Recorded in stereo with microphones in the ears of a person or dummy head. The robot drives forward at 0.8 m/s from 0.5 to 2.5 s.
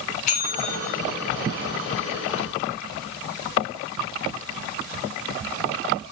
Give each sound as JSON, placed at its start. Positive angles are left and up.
{"t": 0.3, "sound": "a bell", "side_deg": 45, "distance_m": 3.5}